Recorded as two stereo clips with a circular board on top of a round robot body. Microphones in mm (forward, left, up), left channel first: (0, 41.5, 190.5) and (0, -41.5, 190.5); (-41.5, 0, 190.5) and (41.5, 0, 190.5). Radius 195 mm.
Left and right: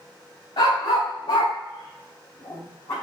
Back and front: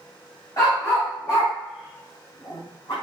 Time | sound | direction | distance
0.6 | a dog barking | 125° left | 3.5 m